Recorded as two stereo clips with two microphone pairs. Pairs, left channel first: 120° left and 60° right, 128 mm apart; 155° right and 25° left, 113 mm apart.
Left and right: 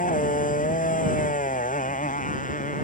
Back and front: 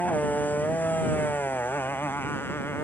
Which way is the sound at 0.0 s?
125° left.